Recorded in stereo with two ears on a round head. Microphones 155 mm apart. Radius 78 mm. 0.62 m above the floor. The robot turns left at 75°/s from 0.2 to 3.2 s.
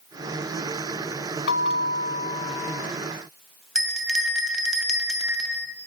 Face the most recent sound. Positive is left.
turn(degrees=-5)  # may be behind; listen again after turning